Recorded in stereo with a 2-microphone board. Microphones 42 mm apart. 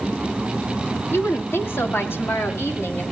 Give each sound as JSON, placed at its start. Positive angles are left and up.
{"t": 1.1, "sound": "a woman speaking", "side_deg": 75, "distance_m": 2.0}